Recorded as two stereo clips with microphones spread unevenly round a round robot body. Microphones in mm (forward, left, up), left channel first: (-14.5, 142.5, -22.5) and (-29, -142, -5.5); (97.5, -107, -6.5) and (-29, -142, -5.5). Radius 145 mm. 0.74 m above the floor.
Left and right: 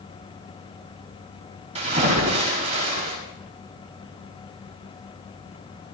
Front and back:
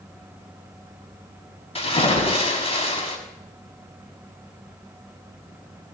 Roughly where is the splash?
Ahead right.